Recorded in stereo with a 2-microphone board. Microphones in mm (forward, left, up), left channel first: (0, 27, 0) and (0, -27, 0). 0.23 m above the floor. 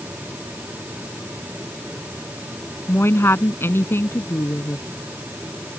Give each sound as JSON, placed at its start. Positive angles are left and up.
{"t": 2.9, "sound": "a woman speaking", "side_deg": 50}